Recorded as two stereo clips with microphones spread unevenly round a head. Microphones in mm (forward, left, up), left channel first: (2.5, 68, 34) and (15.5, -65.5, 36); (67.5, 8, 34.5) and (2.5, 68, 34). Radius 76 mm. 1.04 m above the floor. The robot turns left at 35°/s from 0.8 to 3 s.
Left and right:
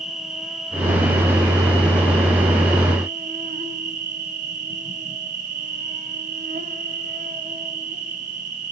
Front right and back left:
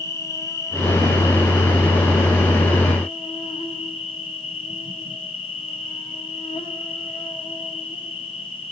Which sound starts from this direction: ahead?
An insect, at 0.0 s.